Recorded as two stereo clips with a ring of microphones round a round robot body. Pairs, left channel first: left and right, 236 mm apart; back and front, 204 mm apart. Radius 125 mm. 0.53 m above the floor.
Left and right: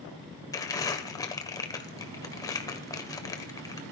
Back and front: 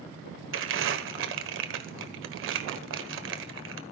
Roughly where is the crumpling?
Ahead.